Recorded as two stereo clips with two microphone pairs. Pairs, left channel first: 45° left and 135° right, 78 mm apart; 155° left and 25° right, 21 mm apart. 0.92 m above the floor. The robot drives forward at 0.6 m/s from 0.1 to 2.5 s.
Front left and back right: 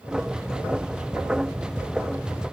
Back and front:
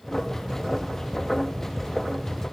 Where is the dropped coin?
I don't hear a dropped coin.